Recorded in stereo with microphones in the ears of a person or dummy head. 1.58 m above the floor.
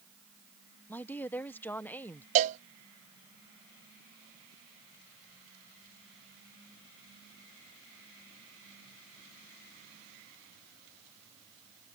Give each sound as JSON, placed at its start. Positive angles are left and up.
{"t": 0.9, "sound": "a woman speaking", "side_deg": 10}
{"t": 2.4, "sound": "a cowbell", "side_deg": -35}